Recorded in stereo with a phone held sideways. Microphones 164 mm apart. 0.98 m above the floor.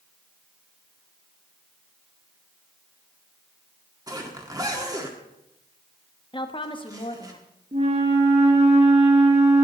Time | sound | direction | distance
4.1 | a zipper | 20° right (ahead or behind) | 1.6 m
6.3 | a woman speaking | 30° left (ahead or behind) | 1.2 m
7.7 | a flute | 40° right (ahead or behind) | 1.8 m